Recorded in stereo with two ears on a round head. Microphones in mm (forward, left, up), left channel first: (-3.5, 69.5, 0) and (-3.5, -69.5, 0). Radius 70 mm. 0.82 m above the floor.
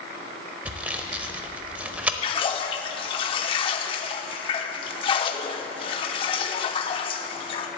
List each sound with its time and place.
0.7 s sawing: 10° right (ahead or behind), 0.6 m
2.2 s a splash: 35° left (ahead or behind), 0.5 m